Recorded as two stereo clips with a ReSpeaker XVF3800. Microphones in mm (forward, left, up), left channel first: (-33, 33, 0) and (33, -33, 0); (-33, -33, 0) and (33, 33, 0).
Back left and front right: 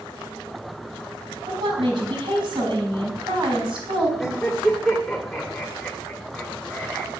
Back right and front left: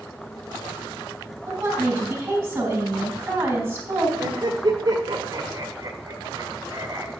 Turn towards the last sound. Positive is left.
turn(degrees=45)